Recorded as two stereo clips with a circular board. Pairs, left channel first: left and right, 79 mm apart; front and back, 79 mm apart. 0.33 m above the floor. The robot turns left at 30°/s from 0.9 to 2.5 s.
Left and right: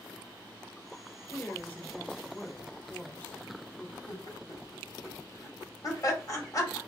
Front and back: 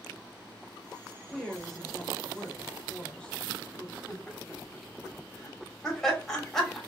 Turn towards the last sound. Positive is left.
turn(degrees=85)